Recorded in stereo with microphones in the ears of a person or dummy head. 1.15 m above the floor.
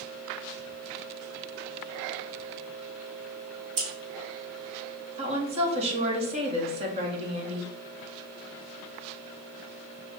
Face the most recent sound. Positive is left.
turn(degrees=-35)  # may be behind; listen again after turning